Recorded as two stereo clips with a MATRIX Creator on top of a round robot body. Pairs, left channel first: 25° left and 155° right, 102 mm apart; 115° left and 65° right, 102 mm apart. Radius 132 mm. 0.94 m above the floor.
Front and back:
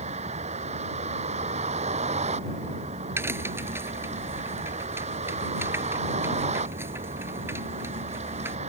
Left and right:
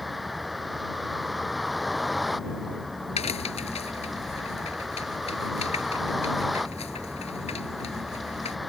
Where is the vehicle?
155° right.